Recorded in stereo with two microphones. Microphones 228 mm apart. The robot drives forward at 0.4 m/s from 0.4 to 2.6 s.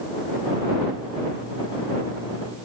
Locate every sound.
Only background noise.